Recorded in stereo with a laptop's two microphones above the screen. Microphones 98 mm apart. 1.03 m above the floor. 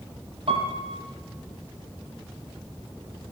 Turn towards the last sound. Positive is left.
turn(degrees=-70)  # may be behind; listen again after turning